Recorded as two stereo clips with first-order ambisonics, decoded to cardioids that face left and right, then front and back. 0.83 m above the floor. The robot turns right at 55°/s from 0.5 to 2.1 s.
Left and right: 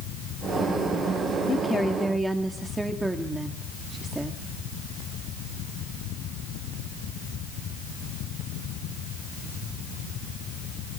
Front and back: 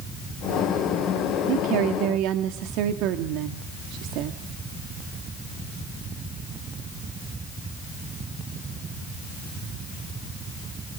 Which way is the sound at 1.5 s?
155° left.